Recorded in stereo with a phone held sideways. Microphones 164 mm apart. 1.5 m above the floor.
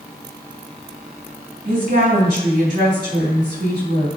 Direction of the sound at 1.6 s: 60° right (ahead or behind).